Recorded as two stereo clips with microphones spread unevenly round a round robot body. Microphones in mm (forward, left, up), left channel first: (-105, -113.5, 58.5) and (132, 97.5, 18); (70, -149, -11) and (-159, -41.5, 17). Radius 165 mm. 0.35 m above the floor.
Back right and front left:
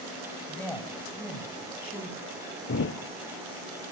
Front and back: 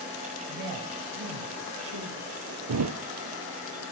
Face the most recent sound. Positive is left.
turn(degrees=170)